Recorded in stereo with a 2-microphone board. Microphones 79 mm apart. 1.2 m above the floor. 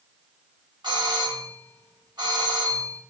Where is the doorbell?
65° right (ahead or behind), 8.5 m.